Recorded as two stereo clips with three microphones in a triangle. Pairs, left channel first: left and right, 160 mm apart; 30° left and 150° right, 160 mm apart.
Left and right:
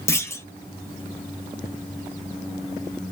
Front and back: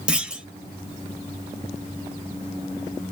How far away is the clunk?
About 0.5 m.